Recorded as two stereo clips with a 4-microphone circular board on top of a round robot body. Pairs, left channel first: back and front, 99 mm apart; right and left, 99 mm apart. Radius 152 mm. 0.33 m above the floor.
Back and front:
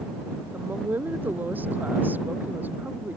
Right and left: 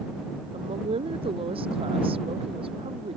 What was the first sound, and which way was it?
A woman speaking, 70° left.